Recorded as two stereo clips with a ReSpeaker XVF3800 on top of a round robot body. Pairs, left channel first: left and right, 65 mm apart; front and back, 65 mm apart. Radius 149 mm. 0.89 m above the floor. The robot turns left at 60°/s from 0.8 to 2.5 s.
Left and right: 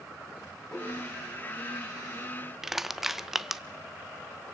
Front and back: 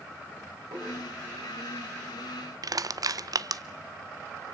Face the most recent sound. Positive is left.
turn(degrees=-175)